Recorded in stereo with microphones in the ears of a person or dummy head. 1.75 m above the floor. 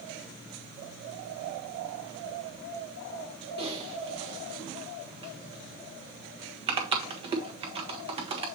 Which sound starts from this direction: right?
Typing on a keyboard, at 3.6 s.